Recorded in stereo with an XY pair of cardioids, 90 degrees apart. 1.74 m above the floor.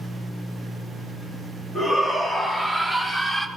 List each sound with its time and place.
1.8 s a shout: 45° left, 4 m; by 3.5 s 15° left, 2.5 m